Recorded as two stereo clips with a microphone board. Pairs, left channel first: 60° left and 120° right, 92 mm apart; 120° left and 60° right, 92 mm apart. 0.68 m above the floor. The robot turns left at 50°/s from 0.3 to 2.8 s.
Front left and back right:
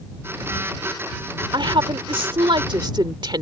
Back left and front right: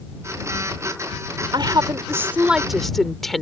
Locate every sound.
1.5 s a woman speaking: 90° right; by 3.4 s 155° right